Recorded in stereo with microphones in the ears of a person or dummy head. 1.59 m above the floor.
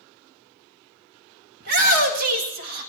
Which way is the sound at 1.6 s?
50° right (ahead or behind).